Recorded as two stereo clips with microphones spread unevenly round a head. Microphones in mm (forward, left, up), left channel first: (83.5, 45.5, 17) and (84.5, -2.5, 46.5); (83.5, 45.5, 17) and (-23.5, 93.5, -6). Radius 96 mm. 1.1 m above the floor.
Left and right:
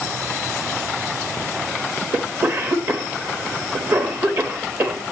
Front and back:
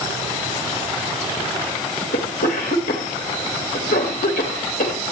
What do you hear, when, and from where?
2.1 s a cough: 40° right, 2 m